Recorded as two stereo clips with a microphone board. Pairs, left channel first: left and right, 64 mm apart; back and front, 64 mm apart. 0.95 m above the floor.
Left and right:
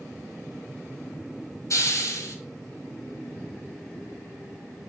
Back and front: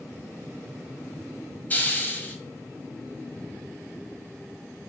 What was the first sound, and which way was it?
A hiss, 120° left.